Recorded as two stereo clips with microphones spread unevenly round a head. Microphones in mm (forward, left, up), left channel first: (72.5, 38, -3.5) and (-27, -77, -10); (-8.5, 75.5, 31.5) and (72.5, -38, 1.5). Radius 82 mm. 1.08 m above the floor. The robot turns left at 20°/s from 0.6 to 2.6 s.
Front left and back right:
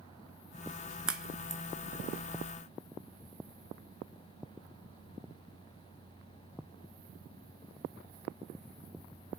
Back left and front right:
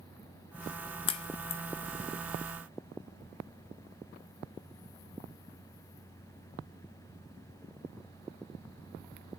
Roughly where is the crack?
Behind left.